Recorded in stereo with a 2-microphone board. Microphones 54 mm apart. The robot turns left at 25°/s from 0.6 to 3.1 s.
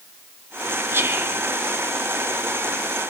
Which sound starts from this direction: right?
Whispering, at 0.9 s.